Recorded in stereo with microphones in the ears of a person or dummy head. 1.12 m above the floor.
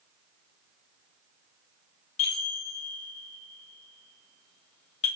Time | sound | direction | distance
2.2 | a chime | 30° left (ahead or behind) | 1.3 m